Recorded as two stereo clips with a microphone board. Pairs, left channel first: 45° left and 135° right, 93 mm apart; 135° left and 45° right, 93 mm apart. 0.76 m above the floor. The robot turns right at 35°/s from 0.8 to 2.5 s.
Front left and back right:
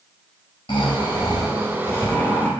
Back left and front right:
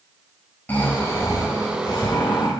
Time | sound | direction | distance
0.7 | snoring | 65° left | 3.5 m